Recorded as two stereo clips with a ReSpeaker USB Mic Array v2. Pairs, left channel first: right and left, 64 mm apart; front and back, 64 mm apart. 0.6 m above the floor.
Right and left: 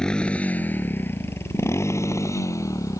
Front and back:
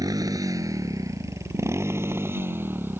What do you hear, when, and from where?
0.0 s a motorcycle: 170° right; by 3.0 s 125° right